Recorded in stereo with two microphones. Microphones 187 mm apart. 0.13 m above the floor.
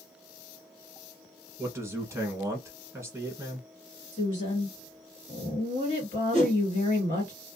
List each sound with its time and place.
1.6 s a man speaking: 15° right (ahead or behind), 1.1 m
4.1 s a woman speaking: 30° left (ahead or behind), 2.0 m
6.3 s a whoosh: 40° left (ahead or behind), 1.8 m